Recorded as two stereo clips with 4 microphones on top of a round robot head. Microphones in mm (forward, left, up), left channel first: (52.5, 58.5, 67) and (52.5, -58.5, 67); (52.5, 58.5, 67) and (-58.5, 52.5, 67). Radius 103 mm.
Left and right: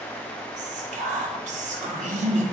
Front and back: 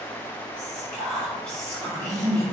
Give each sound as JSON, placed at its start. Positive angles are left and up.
{"t": 0.6, "sound": "whispering", "azimuth_deg": -80, "distance_m": 1.8}